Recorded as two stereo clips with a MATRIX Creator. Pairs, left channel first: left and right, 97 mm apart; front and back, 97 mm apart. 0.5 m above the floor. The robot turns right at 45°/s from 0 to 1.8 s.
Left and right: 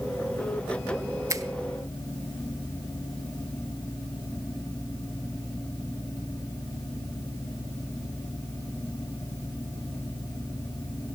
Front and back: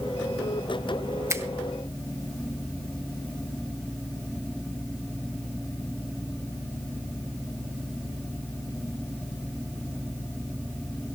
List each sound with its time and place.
1.3 s a finger snap: 135° right, 0.7 m; by 1.4 s 125° right, 0.7 m